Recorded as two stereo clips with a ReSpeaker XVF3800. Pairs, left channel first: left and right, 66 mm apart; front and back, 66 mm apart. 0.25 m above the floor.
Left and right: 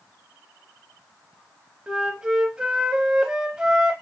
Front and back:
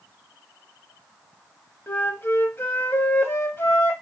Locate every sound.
1.9 s a flute: 20° right, 0.7 m